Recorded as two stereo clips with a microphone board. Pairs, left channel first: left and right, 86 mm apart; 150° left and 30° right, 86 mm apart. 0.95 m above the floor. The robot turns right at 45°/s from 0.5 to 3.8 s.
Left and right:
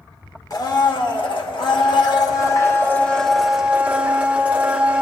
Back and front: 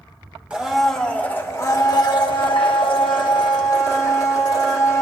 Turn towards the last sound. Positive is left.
turn(degrees=-165)